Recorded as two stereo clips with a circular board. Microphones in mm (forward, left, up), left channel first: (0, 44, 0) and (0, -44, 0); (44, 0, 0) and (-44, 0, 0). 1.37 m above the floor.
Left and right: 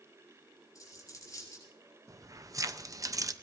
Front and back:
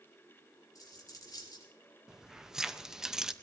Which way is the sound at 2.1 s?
100° right.